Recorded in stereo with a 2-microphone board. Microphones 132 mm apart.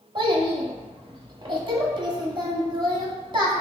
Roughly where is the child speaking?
Right.